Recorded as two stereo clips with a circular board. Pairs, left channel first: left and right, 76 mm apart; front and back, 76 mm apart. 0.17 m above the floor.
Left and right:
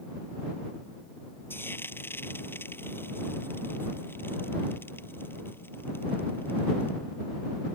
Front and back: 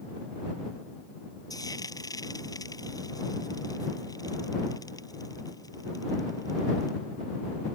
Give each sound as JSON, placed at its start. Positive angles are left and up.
{"t": 1.5, "sound": "frying", "azimuth_deg": 30}